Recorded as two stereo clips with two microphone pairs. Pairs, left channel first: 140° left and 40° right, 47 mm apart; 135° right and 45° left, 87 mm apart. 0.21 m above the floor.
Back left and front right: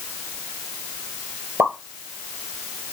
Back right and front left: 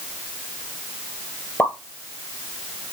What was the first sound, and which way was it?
A pop, 75° right.